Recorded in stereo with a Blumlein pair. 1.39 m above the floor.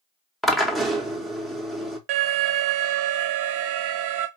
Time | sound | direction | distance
0.4 | a drill | straight ahead | 1.0 m
2.1 | an alarm | 45° right | 0.7 m